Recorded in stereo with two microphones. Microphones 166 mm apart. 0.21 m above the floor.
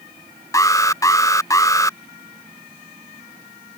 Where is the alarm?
20° left (ahead or behind).